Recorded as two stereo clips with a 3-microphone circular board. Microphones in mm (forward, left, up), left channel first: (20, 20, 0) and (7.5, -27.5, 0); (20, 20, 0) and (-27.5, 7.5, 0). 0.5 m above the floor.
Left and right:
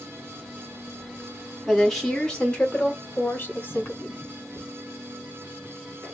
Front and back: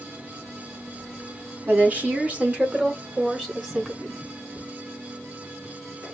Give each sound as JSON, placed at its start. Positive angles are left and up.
{"t": 1.7, "sound": "a woman speaking", "azimuth_deg": 165, "distance_m": 1.5}